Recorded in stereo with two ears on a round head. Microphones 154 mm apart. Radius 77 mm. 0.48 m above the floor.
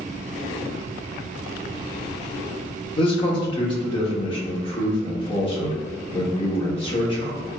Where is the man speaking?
30° left (ahead or behind), 1.2 m.